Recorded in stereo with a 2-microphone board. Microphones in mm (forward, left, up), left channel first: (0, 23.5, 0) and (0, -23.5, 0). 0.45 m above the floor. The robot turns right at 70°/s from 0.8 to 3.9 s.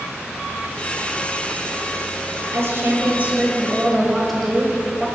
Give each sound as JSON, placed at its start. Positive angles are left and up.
{"t": 2.5, "sound": "a woman speaking", "azimuth_deg": -90, "distance_m": 1.8}